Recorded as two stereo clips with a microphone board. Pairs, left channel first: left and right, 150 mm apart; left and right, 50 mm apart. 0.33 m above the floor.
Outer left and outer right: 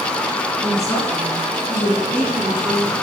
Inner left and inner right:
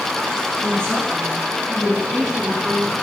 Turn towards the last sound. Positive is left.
turn(degrees=0)  # may be behind; listen again after turning